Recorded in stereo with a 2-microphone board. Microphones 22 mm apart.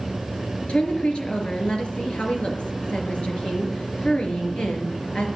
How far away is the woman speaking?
About 3.5 m.